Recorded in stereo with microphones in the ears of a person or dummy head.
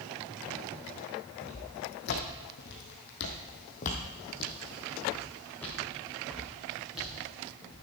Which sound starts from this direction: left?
Footsteps, at 1.4 s.